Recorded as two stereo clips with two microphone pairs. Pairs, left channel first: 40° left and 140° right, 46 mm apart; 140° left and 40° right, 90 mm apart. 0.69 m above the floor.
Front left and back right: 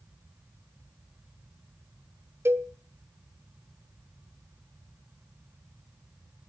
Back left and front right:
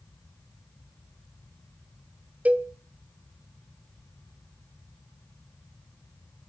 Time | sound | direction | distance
2.5 | a cowbell | 115° right | 0.9 m